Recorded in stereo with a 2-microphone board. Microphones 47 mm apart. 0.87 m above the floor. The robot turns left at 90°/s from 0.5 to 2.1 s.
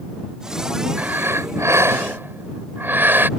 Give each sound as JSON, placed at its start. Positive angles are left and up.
{"t": 1.0, "sound": "breathing", "azimuth_deg": -30}